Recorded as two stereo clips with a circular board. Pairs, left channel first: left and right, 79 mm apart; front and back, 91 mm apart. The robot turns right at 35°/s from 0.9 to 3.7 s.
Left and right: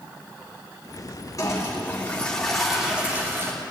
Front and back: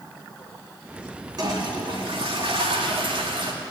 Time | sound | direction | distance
1.4 | a toilet flushing | 135° left | 3 m